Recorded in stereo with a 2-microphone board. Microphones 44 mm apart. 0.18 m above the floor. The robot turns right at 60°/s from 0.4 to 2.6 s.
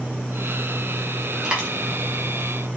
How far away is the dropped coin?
About 4 m.